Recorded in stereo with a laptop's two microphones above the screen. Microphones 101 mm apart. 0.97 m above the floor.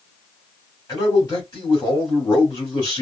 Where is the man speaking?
40° left (ahead or behind), 2.5 m.